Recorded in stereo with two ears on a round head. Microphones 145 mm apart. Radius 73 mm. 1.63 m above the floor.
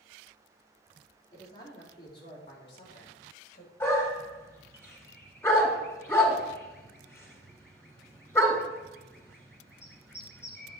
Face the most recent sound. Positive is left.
turn(degrees=15)  # may be behind; listen again after turning